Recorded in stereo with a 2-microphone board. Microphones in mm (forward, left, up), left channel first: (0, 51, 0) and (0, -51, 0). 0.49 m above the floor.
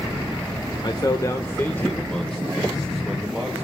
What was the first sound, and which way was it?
A man speaking, 45° left (ahead or behind).